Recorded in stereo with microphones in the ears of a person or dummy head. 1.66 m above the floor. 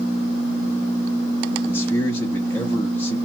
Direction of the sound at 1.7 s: 15° left (ahead or behind).